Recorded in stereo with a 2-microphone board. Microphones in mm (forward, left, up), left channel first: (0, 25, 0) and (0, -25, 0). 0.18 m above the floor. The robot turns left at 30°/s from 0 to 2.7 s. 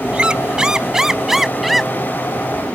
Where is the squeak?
20° right (ahead or behind); by 1.9 s centre (ahead or behind).